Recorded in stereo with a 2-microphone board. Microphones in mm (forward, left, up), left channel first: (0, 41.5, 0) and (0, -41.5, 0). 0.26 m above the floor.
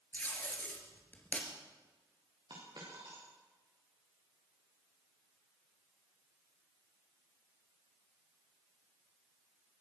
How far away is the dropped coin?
About 8 m.